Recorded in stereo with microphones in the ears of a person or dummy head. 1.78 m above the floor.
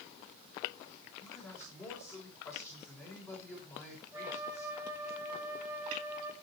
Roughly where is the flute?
Centre.